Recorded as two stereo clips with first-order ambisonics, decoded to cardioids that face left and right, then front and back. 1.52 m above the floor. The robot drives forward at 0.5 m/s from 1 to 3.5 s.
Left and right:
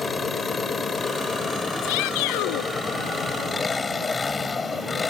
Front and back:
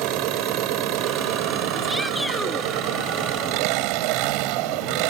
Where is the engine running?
165° left.